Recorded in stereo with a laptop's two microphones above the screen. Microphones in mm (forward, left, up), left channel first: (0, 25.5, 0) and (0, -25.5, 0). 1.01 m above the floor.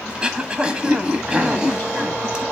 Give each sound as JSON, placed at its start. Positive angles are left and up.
{"t": 0.1, "sound": "throat clearing", "side_deg": -20, "distance_m": 1.0}